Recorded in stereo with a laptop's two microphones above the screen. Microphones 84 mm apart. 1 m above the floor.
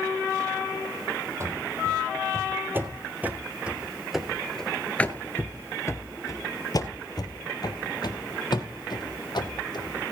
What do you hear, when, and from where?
1.4 s running footsteps: 35° right (ahead or behind), 2 m; by 10.0 s 60° left (ahead or behind), 3 m